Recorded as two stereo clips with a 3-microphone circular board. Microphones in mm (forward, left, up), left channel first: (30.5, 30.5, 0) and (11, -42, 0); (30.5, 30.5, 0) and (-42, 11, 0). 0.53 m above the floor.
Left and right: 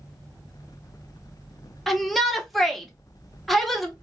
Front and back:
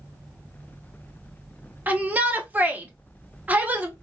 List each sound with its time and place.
1.9 s a shout: 160° left, 0.8 m